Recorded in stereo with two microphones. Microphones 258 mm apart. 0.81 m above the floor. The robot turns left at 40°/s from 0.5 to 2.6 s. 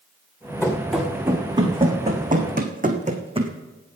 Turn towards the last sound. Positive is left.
turn(degrees=-20)  # may be behind; listen again after turning